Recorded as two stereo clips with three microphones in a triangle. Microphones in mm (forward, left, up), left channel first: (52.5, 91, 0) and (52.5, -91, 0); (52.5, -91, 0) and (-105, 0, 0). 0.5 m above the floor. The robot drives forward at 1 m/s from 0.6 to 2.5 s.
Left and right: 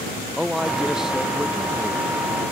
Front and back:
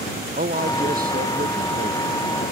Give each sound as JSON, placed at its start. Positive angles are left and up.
{"t": 0.4, "sound": "a man speaking", "azimuth_deg": -175}